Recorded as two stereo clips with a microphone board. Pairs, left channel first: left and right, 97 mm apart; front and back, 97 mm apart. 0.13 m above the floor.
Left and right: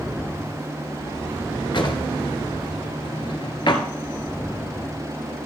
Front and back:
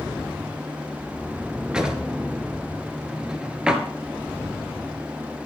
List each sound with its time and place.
1.7 s a drawer: 100° left, 1.4 m